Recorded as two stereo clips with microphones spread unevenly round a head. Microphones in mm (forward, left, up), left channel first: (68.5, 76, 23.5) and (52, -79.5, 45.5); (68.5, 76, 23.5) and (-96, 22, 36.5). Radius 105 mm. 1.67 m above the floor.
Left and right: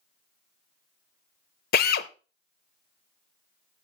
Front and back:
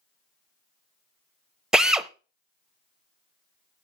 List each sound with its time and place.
1.7 s a drill: 110° left, 0.7 m